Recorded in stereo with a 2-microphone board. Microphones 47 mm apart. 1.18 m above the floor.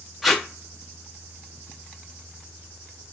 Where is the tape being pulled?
5° right (ahead or behind), 0.6 m.